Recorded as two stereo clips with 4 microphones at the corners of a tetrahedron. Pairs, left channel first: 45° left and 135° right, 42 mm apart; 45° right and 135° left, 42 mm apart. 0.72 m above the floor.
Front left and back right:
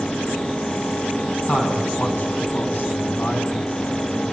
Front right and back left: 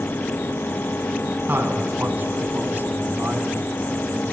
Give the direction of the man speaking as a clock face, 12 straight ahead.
9 o'clock.